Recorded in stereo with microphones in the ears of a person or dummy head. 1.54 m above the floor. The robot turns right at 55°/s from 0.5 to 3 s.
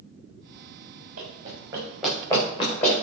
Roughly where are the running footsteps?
Right.